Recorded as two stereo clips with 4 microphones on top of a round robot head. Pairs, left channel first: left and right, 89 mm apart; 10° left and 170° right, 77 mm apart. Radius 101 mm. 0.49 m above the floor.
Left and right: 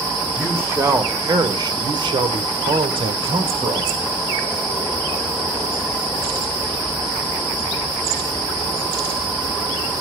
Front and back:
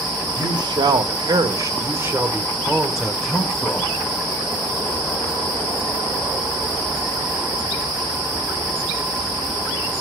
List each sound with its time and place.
0.4 s a man speaking: 160° right, 2 m; by 4.1 s 60° right, 2.5 m